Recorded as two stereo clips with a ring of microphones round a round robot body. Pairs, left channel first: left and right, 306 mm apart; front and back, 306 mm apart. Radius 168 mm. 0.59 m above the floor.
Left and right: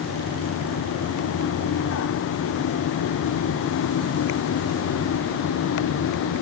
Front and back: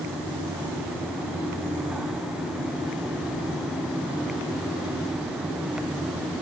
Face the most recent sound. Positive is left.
No sound to turn to.